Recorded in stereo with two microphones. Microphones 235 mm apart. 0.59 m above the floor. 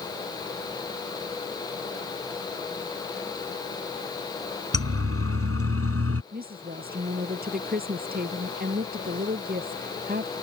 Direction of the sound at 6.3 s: 40° right (ahead or behind).